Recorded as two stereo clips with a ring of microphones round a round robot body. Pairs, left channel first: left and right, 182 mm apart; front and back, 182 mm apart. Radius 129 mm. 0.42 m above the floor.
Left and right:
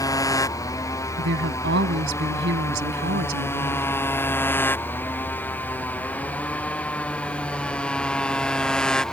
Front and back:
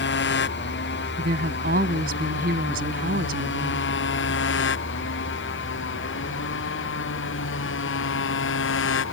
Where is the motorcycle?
20° left; by 9.1 s 5° left.